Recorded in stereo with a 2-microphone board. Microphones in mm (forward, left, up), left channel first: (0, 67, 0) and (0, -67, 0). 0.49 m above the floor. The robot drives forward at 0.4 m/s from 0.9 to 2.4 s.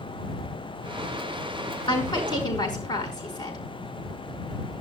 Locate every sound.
1.9 s a woman speaking: 35° left (ahead or behind), 5 m